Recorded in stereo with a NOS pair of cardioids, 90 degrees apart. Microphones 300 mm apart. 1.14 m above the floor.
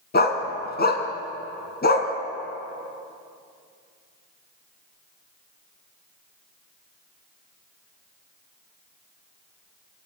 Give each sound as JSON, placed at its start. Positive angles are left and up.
{"t": 0.1, "sound": "a dog barking", "azimuth_deg": 30, "distance_m": 3.0}